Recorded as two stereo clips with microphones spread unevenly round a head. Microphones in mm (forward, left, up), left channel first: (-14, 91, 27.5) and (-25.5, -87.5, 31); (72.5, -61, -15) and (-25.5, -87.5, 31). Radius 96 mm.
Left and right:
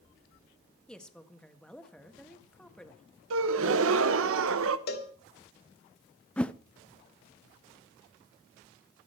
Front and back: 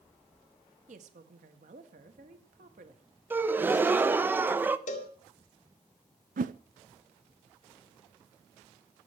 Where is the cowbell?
45° left, 1.8 m.